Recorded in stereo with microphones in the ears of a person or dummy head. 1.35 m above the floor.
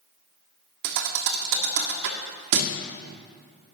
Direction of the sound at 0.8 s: 65° right (ahead or behind).